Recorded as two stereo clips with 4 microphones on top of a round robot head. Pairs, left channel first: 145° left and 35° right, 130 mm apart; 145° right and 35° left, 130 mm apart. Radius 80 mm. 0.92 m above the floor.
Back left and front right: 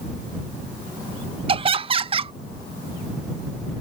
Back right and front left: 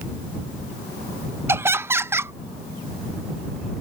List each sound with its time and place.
1.5 s laughter: 25° right